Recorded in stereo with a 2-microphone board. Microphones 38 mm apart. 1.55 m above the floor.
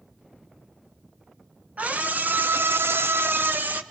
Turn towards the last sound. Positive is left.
turn(degrees=-50)  # may be behind; listen again after turning